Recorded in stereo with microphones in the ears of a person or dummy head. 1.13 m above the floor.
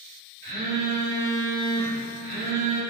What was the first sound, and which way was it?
A phone buzzing, 60° right (ahead or behind).